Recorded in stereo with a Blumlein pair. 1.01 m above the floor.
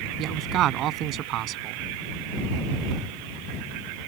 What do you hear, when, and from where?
0.2 s a man speaking: 35° right